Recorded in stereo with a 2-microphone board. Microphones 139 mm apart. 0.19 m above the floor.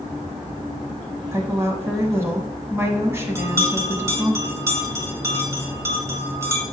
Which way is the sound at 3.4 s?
20° right (ahead or behind).